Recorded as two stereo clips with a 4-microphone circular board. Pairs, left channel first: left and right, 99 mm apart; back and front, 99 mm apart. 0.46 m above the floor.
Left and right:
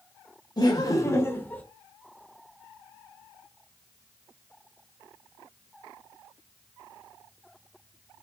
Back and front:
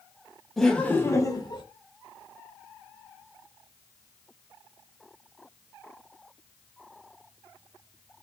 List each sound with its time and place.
0.6 s laughter: 95° left, 1.0 m; by 1.6 s 160° left, 1.1 m